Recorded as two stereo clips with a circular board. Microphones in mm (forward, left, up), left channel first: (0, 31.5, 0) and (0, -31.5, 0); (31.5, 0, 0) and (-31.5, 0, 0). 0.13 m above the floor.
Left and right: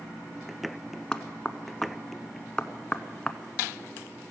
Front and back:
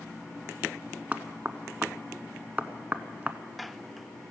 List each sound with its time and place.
1.1 s knocking: 150° left, 0.8 m